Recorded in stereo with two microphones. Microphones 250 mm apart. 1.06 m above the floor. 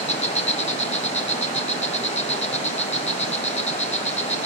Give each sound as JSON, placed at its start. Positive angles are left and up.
{"t": 0.0, "sound": "an insect", "side_deg": 25, "distance_m": 1.1}